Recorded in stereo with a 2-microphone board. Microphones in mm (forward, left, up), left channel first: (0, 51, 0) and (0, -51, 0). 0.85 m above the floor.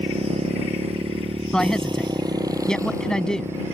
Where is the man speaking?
10° left (ahead or behind).